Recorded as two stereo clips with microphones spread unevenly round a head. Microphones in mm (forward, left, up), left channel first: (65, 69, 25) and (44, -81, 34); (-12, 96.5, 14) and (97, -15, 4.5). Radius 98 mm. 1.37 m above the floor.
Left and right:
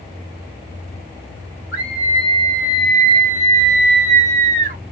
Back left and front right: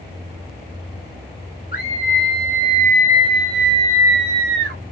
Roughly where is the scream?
Behind.